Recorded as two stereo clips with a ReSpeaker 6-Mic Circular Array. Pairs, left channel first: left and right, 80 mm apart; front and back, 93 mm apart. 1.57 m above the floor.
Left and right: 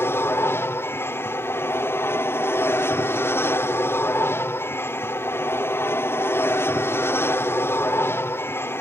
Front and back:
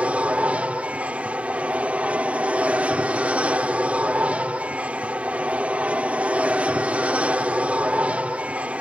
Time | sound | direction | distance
0.0 | an aircraft | 115° left | ?